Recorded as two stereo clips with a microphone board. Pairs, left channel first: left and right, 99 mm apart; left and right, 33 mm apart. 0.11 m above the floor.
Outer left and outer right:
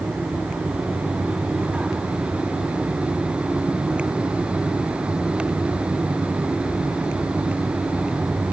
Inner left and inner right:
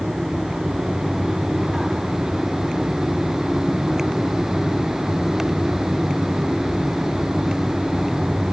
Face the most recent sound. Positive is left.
No sound to turn to.